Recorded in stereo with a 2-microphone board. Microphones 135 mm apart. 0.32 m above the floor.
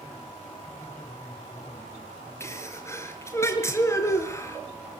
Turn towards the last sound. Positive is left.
turn(degrees=20)  # may be behind; listen again after turning